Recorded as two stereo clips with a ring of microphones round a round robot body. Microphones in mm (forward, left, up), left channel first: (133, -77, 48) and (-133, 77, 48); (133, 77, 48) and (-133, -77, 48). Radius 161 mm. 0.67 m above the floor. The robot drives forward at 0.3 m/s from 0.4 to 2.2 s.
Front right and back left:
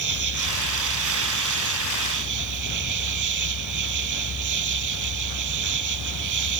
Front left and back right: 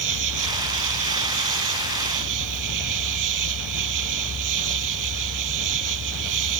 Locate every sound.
0.0 s an insect: straight behind